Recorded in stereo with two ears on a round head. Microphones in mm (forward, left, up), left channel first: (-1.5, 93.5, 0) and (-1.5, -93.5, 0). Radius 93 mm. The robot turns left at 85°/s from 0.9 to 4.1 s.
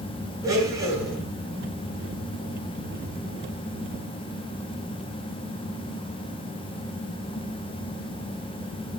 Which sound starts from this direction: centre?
A blender, at 0.4 s.